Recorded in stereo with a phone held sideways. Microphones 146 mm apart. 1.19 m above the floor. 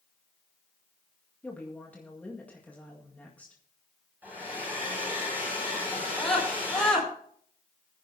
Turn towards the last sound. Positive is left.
turn(degrees=5)  # may be behind; listen again after turning